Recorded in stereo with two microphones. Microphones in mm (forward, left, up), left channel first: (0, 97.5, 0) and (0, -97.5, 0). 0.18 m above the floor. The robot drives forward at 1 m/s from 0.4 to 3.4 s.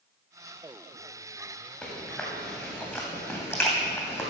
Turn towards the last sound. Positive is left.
turn(degrees=15)  # may be behind; listen again after turning